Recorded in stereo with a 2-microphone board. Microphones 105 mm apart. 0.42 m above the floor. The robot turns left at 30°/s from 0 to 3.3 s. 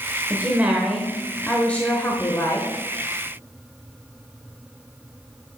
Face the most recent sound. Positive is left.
turn(degrees=120)